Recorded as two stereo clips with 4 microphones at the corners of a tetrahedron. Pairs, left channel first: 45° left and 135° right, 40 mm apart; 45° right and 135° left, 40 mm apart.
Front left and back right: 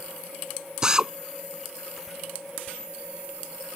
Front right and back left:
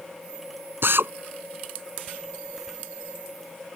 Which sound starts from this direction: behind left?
A drill, at 0.8 s.